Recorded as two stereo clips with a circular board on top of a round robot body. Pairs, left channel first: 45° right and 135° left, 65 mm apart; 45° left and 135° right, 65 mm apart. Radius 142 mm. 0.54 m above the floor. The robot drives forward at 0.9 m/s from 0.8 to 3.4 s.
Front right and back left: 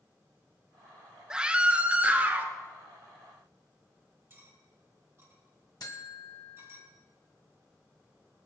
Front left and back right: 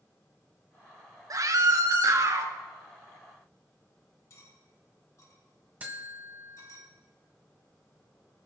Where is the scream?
150° right, 1.3 m; by 2.5 s 165° right, 2 m.